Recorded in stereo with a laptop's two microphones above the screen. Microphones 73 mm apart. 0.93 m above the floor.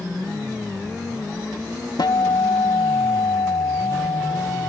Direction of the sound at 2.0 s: 70° left (ahead or behind).